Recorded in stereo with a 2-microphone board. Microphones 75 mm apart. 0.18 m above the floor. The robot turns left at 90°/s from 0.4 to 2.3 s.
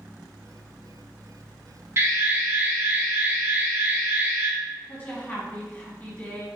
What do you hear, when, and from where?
2.0 s an alarm: 100° right, 0.9 m; by 4.5 s 130° right, 0.9 m
4.9 s a woman speaking: 25° left (ahead or behind), 1.2 m